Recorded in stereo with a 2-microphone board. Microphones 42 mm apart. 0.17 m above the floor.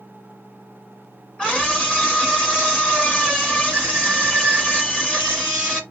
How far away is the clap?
No clap in this recording.